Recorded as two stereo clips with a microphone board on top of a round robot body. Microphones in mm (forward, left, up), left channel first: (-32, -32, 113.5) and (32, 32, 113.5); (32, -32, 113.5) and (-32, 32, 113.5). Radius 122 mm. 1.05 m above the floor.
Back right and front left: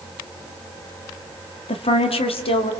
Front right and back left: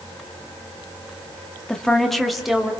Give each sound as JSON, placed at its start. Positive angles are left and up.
{"t": 1.7, "sound": "a woman speaking", "azimuth_deg": -130, "distance_m": 2.0}